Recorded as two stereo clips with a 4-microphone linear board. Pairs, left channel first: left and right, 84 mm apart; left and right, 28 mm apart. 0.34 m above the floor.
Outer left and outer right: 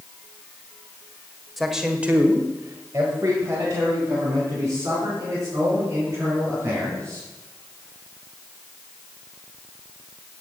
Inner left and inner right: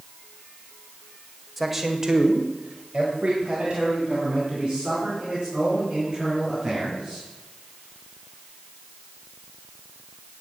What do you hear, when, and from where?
1.6 s a man speaking: centre (ahead or behind), 1.7 m; by 7.3 s 30° right (ahead or behind), 8 m